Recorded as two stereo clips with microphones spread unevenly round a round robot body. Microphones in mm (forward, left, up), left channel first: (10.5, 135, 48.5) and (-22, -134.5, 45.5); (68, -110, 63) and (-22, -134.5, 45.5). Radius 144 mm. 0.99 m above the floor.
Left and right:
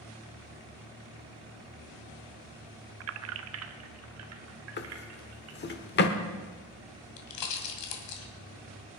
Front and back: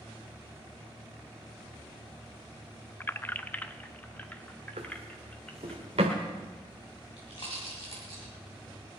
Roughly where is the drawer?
Behind left.